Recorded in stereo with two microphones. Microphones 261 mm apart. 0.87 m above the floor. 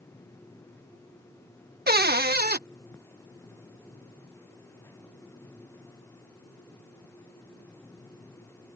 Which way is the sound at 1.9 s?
40° right (ahead or behind).